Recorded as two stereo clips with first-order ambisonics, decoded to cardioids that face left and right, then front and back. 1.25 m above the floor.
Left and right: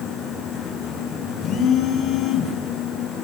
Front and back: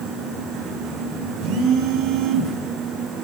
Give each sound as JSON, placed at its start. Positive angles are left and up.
{"t": 1.4, "sound": "a phone buzzing", "azimuth_deg": 145, "distance_m": 3.0}